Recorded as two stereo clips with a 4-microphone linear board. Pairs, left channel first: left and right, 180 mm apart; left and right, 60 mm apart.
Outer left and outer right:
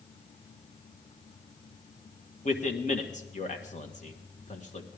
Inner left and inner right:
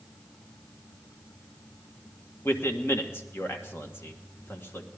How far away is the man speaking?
About 1.5 m.